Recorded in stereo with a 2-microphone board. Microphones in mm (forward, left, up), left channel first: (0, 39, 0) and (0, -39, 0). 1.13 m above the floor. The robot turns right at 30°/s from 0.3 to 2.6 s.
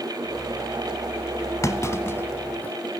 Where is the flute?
No flute in this recording.